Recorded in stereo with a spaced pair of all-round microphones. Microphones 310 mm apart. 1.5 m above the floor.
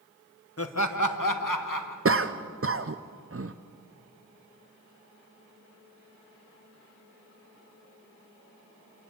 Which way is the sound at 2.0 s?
45° right (ahead or behind).